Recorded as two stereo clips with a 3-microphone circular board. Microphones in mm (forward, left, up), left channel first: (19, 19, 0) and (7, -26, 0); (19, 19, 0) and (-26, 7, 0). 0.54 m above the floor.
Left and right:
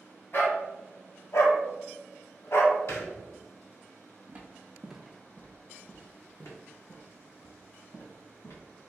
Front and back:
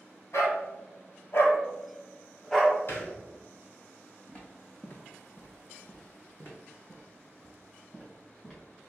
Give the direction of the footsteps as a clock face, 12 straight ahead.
1 o'clock.